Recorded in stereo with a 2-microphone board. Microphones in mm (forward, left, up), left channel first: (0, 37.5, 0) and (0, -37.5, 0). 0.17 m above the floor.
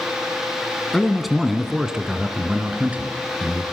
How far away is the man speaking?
About 1.4 m.